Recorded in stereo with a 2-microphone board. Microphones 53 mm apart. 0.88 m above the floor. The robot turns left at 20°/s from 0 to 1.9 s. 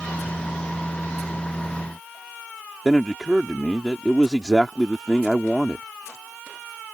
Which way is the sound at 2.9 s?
5° right (ahead or behind).